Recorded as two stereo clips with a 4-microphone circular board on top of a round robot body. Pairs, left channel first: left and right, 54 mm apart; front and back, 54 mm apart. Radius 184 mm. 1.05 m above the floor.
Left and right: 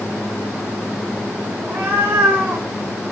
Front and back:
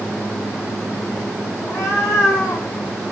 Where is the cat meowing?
35° right, 3.5 m.